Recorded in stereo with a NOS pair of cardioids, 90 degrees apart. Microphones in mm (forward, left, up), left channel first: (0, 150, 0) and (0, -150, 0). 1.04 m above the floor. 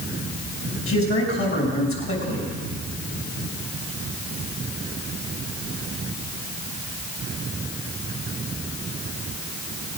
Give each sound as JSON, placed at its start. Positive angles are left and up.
{"t": 0.9, "sound": "a man speaking", "azimuth_deg": 45, "distance_m": 6.0}